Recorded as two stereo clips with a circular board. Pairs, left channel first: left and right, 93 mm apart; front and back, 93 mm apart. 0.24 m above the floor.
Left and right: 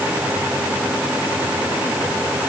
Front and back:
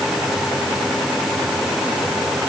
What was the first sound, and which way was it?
Only background noise.